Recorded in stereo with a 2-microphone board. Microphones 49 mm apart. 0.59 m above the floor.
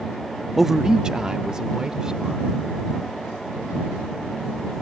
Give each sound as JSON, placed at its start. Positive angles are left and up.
{"t": 0.6, "sound": "a man speaking", "side_deg": -5}